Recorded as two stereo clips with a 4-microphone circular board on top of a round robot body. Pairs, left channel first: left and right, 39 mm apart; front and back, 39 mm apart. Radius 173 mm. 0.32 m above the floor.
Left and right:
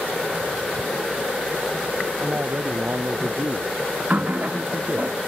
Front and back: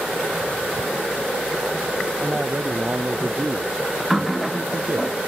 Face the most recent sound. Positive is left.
turn(degrees=-100)